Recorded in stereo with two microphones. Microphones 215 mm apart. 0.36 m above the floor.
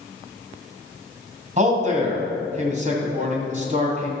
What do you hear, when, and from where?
1.6 s a man speaking: 35° right (ahead or behind), 2.5 m